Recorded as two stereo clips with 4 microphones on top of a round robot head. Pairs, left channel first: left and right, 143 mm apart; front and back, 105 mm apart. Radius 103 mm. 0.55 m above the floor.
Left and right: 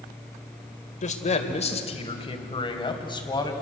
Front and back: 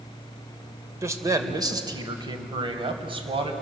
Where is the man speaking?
120° left, 2.5 m; by 3.5 s 150° left, 4 m.